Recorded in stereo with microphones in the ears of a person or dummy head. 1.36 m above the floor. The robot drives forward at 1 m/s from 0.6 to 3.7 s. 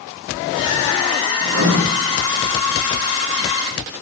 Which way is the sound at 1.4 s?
85° right.